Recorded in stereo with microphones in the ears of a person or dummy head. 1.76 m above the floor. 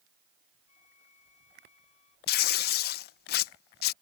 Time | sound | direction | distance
0.7 | a flute | 40° left (ahead or behind) | ?
2.3 | tearing paper | 60° left (ahead or behind) | ?